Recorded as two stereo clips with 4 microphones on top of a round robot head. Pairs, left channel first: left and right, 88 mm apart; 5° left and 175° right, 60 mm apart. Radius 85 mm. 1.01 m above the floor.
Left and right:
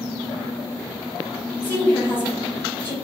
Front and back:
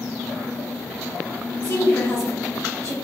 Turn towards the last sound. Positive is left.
turn(degrees=25)